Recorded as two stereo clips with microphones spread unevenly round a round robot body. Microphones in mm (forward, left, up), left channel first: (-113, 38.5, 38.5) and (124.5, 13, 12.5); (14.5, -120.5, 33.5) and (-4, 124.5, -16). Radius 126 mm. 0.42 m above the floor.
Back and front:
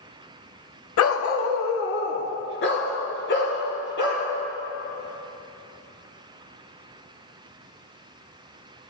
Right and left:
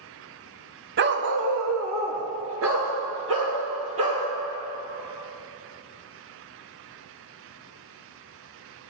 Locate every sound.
1.0 s a dog barking: 145° left, 0.9 m; by 4.2 s 130° left, 4.5 m